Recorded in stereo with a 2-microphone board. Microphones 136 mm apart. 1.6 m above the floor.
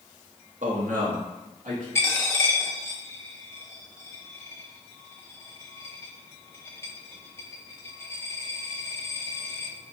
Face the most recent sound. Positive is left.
turn(degrees=20)  # may be behind; listen again after turning